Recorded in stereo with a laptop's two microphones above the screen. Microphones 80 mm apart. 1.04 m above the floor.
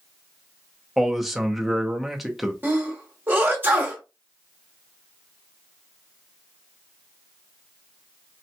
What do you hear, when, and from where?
1.0 s a man speaking: 5° right (ahead or behind), 0.5 m
2.6 s a sneeze: 25° right (ahead or behind), 0.9 m